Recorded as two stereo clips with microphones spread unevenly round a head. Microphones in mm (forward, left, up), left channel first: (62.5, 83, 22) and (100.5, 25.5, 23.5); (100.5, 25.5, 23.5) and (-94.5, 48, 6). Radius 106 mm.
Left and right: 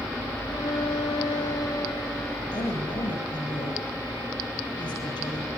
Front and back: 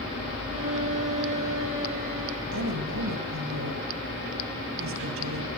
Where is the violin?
150° right, 7 m.